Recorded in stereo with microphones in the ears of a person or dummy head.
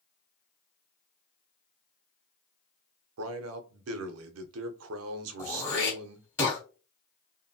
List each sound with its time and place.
3.2 s a man speaking: 90° right, 0.6 m
5.4 s throat clearing: 15° left (ahead or behind), 1.7 m